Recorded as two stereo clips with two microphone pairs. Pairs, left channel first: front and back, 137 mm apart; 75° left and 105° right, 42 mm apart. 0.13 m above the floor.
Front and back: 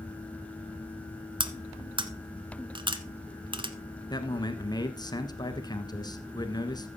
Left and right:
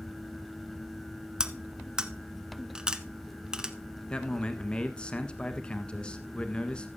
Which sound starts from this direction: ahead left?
A man speaking, at 4.1 s.